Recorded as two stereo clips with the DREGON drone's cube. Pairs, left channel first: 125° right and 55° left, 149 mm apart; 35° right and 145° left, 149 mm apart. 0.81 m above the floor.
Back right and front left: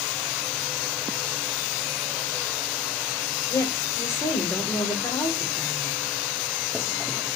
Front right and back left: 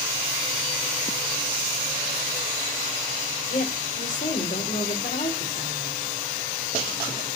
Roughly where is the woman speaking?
Ahead right.